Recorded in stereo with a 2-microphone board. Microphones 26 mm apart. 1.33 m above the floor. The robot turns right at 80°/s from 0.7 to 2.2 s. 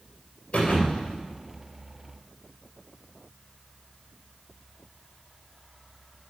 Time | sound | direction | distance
0.5 | a thud | 65° left | 3 m